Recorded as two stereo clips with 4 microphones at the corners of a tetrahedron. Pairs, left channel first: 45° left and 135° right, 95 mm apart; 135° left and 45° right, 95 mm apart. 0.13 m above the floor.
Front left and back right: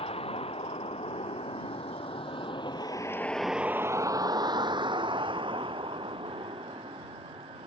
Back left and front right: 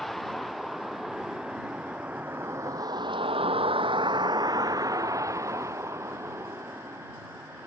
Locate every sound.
0.0 s a vehicle: 45° left; by 7.7 s 110° right